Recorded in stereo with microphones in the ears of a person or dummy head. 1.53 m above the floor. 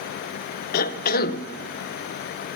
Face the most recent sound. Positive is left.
turn(degrees=55)  # may be behind; listen again after turning